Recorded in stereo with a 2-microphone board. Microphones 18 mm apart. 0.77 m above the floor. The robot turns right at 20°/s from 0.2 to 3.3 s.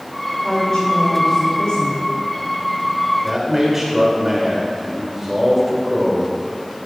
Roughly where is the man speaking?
Right.